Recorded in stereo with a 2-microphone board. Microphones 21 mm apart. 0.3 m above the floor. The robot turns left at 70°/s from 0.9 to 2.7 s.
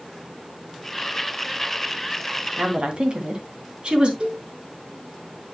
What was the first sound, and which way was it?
A woman speaking, 50° right (ahead or behind).